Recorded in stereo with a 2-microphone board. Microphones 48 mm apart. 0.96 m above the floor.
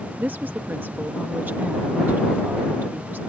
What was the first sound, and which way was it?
A woman speaking, 40° right (ahead or behind).